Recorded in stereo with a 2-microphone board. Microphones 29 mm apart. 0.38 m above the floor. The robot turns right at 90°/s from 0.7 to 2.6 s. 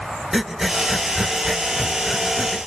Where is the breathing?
10° right (ahead or behind), 0.8 m; by 2.6 s 5° left (ahead or behind), 0.8 m.